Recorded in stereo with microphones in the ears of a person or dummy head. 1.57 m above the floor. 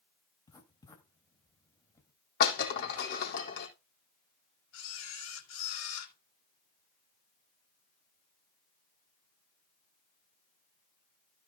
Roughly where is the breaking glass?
Left.